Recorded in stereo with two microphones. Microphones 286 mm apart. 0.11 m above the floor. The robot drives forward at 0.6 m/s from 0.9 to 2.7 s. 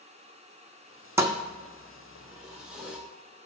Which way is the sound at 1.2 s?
10° right (ahead or behind).